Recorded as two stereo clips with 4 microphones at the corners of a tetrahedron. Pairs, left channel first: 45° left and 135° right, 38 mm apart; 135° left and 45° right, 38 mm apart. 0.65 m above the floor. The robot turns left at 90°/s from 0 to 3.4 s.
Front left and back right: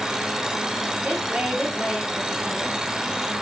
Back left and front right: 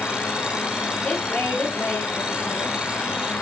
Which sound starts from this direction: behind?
A woman speaking, at 1.0 s.